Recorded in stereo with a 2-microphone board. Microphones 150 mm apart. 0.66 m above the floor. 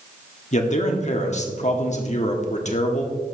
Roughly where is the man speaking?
Left.